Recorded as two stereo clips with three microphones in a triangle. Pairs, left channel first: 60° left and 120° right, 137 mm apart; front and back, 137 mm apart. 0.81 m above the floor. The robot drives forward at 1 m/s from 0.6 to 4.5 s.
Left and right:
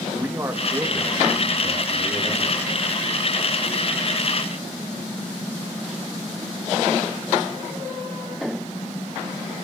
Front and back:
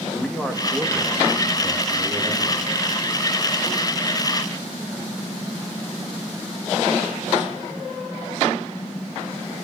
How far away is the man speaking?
About 1.1 m.